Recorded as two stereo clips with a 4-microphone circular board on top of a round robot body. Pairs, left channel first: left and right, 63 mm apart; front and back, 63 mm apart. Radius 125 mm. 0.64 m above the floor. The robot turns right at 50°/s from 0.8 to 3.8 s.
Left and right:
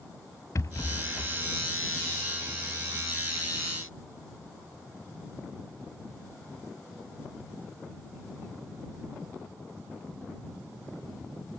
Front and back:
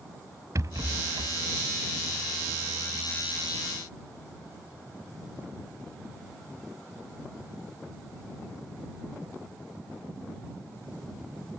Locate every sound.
0.6 s a rattle: 145° left; by 1.4 s 170° left